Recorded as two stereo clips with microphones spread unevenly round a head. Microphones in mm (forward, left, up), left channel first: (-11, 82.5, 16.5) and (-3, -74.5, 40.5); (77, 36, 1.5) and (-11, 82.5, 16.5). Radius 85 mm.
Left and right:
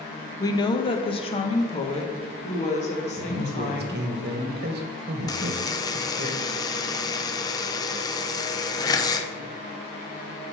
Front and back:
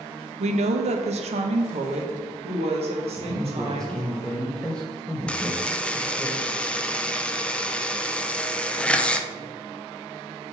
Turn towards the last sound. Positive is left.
turn(degrees=40)